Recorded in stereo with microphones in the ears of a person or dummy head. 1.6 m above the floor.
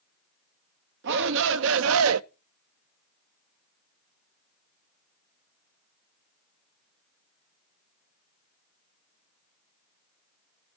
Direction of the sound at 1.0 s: 70° right (ahead or behind).